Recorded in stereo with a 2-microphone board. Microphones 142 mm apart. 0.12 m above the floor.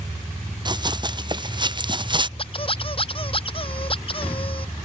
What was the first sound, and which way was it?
Running footsteps, 30° right (ahead or behind).